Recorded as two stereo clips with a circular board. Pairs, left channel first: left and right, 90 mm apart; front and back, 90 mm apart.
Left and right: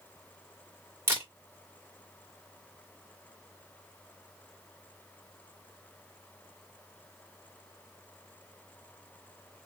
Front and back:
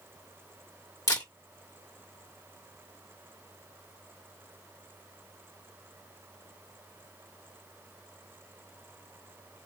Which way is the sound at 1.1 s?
35° right.